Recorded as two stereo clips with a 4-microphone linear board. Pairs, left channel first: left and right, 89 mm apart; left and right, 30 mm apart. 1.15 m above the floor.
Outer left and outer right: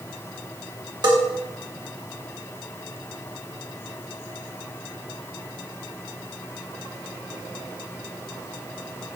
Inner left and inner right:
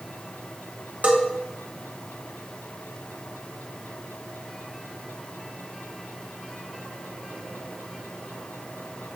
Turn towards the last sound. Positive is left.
turn(degrees=-55)  # may be behind; listen again after turning